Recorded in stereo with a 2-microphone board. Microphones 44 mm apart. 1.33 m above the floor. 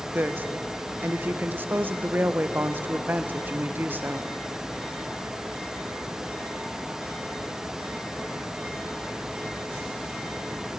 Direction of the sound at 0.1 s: 50° right (ahead or behind).